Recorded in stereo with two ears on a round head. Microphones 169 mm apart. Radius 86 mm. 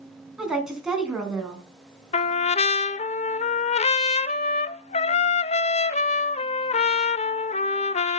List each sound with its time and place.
0.4 s a woman speaking: 5° right (ahead or behind), 3.5 m
2.1 s a trumpet: 35° left (ahead or behind), 0.6 m